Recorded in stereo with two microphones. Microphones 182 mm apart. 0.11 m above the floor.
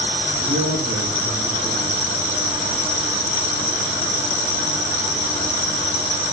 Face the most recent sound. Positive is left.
turn(degrees=-45)  # may be behind; listen again after turning